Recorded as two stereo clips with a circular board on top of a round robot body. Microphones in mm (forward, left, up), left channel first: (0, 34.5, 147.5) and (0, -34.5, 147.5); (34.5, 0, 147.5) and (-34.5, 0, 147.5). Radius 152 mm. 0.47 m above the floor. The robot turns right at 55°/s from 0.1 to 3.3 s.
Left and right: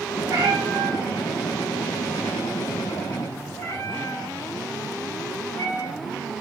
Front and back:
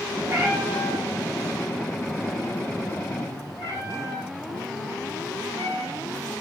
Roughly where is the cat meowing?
Behind right.